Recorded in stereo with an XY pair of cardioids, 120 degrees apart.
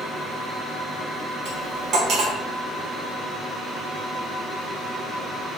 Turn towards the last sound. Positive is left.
turn(degrees=-60)